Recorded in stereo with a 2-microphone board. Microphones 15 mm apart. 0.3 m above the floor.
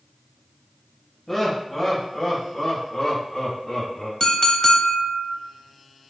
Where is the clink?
50° left (ahead or behind), 0.8 m.